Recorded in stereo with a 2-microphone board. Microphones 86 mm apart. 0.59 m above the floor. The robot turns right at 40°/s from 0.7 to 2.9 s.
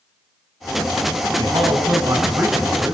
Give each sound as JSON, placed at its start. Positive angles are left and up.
{"t": 1.4, "sound": "a man speaking", "azimuth_deg": -75, "distance_m": 5.0}